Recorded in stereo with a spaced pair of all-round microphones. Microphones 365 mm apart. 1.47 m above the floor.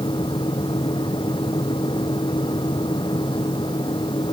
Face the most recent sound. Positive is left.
turn(degrees=15)  # may be behind; listen again after turning